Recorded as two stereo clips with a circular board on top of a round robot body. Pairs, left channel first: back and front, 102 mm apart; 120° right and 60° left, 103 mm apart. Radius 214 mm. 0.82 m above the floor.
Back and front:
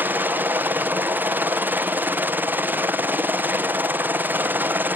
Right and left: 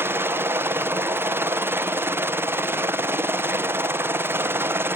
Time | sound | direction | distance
0.0 | a helicopter | 40° left | ?